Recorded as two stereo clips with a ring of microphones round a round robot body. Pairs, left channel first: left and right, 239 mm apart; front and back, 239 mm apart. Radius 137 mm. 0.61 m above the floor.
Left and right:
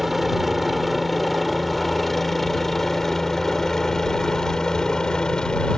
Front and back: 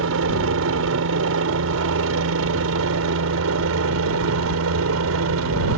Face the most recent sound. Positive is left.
turn(degrees=175)